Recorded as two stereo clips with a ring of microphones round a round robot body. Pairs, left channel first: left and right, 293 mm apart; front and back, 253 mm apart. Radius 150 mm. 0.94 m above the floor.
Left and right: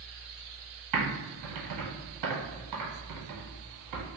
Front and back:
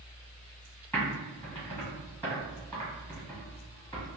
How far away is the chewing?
I don't hear chewing.